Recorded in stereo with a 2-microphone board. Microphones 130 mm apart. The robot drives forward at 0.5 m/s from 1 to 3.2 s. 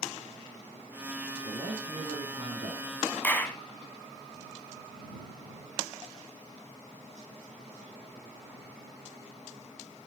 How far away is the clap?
About 1.1 m.